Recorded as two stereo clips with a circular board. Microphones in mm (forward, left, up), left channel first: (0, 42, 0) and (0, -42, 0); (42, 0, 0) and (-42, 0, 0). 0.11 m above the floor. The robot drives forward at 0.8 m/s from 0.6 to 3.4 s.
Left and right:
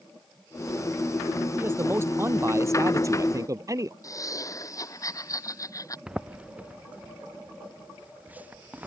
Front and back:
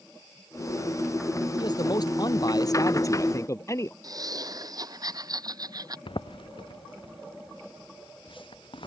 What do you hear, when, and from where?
1.6 s a man speaking: 30° right; by 3.9 s 45° right
4.0 s laughter: 140° left
6.1 s footsteps: 10° right; by 8.9 s 20° right